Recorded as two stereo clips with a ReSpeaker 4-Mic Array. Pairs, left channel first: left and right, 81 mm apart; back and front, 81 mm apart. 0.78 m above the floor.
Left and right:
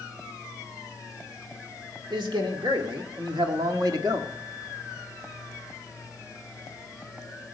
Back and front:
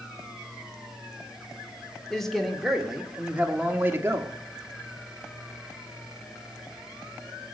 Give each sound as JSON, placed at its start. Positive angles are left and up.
{"t": 2.1, "sound": "a man speaking", "azimuth_deg": -95, "distance_m": 1.7}